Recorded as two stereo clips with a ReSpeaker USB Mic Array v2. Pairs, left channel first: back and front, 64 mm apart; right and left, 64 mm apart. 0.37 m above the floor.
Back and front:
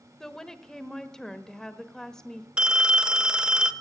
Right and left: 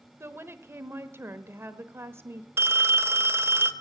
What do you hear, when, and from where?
0.2 s a woman speaking: 105° left, 1.1 m
2.6 s a phone ringing: 70° left, 0.8 m